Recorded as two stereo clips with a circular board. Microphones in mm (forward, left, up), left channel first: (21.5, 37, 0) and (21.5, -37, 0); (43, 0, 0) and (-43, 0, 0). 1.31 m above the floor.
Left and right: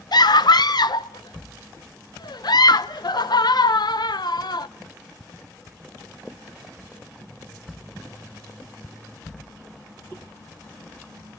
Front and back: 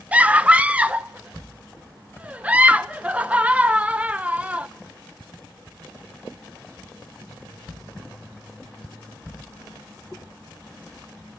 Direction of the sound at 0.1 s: 105° left.